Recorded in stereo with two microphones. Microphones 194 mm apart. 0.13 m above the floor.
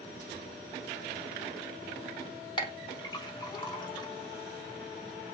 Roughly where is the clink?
Left.